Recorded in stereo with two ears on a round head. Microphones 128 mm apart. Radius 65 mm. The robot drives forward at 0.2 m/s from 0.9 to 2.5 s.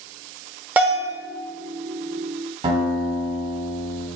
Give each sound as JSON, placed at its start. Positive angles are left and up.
{"t": 0.8, "sound": "a bell", "side_deg": -10, "distance_m": 0.8}
{"t": 2.6, "sound": "a guitar", "side_deg": -40, "distance_m": 1.8}